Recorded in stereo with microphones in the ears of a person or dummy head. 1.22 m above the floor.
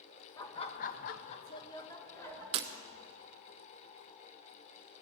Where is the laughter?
25° left (ahead or behind), 1.1 m; by 2.4 s 15° left (ahead or behind), 2.5 m.